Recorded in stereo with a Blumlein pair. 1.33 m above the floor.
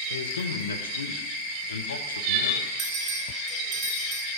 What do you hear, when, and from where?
0.1 s a man speaking: 70° left, 1.0 m
2.8 s a bell: 10° right, 2 m